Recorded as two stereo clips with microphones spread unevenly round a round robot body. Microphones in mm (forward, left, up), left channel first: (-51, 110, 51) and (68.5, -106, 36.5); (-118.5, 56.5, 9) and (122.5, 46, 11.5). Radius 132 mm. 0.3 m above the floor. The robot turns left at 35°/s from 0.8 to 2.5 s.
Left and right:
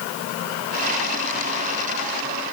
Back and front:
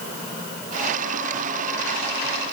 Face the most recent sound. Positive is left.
No sound to turn to.